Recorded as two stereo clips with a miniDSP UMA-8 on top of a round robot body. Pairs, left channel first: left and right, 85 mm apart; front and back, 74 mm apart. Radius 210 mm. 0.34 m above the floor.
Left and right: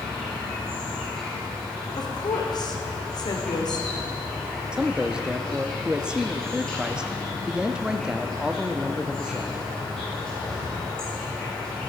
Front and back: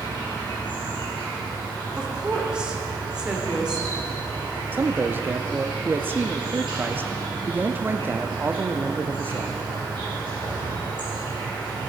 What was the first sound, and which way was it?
An insect, 170° left.